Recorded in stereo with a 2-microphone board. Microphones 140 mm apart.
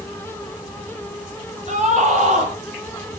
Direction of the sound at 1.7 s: 55° right (ahead or behind).